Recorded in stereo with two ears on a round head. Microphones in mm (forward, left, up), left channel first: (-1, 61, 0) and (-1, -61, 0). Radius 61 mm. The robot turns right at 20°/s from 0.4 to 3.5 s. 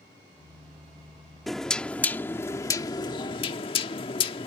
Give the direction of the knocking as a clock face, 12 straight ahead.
12 o'clock.